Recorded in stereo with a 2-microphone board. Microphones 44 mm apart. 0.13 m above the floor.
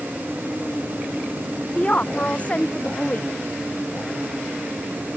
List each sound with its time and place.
1.8 s a woman speaking: 35° left (ahead or behind)